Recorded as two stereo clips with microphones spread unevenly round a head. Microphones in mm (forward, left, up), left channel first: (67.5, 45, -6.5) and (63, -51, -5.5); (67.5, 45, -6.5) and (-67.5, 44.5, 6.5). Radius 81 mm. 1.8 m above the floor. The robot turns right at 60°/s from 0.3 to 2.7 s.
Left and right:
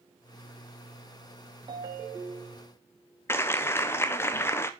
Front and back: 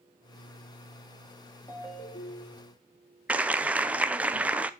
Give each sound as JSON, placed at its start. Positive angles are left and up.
{"t": 1.7, "sound": "a ringtone", "azimuth_deg": -75, "distance_m": 1.6}
{"t": 3.3, "sound": "a clap", "azimuth_deg": 125, "distance_m": 0.6}